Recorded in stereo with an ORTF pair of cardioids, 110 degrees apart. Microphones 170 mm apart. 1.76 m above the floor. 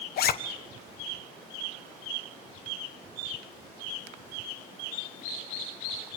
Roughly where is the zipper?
Ahead left.